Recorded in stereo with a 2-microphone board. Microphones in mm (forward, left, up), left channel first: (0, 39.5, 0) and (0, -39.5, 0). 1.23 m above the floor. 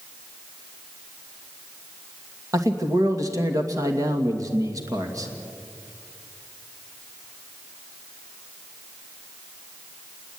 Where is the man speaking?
45° right (ahead or behind), 2 m.